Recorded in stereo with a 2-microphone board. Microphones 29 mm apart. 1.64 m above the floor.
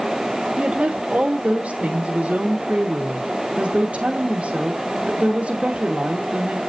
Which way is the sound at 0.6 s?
45° right (ahead or behind).